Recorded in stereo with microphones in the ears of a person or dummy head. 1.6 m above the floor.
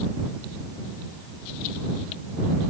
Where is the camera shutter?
I don't hear a camera shutter.